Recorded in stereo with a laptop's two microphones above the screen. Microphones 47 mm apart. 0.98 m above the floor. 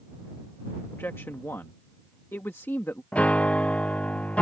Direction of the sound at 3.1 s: 30° left (ahead or behind).